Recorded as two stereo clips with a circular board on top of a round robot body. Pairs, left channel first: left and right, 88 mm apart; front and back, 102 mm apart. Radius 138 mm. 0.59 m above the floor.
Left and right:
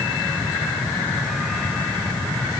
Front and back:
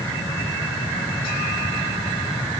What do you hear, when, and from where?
Only background noise.